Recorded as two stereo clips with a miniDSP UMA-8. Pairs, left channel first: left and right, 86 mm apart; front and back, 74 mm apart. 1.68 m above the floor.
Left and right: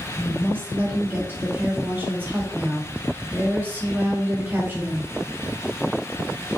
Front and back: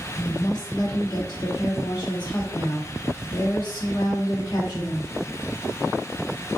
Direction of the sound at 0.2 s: 20° right.